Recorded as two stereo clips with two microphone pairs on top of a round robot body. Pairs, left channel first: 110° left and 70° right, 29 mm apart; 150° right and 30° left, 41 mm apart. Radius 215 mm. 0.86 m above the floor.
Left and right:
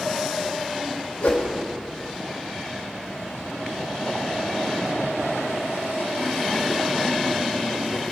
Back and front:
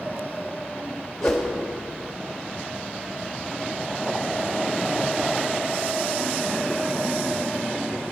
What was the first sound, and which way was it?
A whoosh, 130° left.